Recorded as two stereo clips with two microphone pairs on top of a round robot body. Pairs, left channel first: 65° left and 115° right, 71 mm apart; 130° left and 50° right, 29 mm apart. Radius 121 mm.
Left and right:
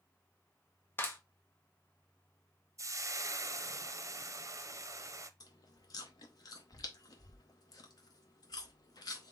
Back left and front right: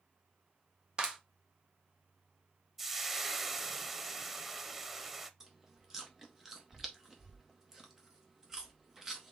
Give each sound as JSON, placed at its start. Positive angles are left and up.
{"t": 1.0, "sound": "a clap", "azimuth_deg": 10, "distance_m": 1.1}
{"t": 2.8, "sound": "frying", "azimuth_deg": -120, "distance_m": 0.8}
{"t": 5.4, "sound": "chewing", "azimuth_deg": 25, "distance_m": 0.5}